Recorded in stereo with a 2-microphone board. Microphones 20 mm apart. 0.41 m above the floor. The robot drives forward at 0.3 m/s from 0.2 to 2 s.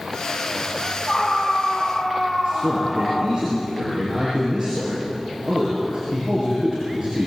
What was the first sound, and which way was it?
A scream, 45° left (ahead or behind).